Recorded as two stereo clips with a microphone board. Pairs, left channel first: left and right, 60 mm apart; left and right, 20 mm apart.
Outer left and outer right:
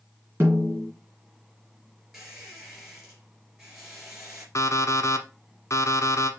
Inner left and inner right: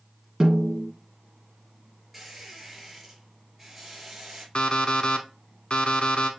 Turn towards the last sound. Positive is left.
turn(degrees=55)  # may be behind; listen again after turning